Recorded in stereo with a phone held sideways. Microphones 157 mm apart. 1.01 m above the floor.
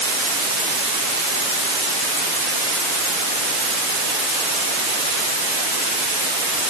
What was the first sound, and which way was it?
Only background noise.